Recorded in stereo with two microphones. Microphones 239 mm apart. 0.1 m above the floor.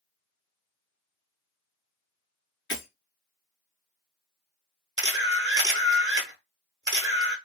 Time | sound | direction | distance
2.7 | breaking glass | 65° left (ahead or behind) | 0.8 m
5.0 | a camera shutter | 60° right (ahead or behind) | 0.7 m